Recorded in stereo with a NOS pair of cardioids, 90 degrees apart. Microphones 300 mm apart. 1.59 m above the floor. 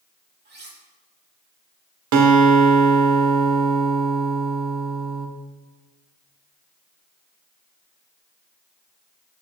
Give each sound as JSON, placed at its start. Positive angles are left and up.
{"t": 0.5, "sound": "cutlery clinking", "azimuth_deg": -35, "distance_m": 2.5}
{"t": 2.1, "sound": "a guitar", "azimuth_deg": -70, "distance_m": 1.4}